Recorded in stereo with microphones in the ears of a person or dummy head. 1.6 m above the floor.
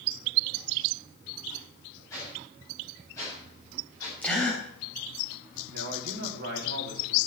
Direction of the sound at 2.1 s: 15° left (ahead or behind).